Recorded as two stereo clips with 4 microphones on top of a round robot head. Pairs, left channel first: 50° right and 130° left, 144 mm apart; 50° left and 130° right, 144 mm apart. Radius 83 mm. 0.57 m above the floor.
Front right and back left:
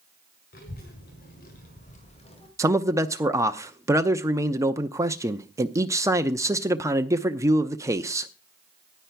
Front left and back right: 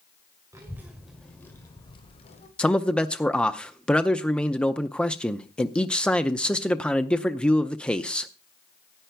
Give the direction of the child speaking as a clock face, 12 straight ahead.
2 o'clock.